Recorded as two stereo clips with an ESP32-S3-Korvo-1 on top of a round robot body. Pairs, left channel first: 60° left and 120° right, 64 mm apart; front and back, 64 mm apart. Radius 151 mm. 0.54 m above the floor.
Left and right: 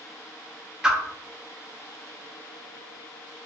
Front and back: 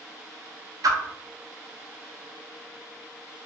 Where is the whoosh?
165° left, 0.5 m.